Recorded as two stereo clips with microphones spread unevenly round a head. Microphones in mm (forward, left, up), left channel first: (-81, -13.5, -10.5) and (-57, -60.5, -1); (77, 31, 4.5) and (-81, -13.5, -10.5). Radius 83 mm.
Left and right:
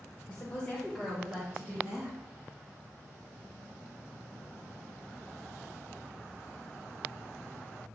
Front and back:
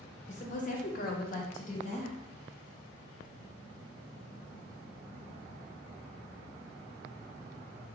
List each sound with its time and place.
0.3 s a woman speaking: 55° left, 0.9 m; by 2.2 s 35° right, 1.0 m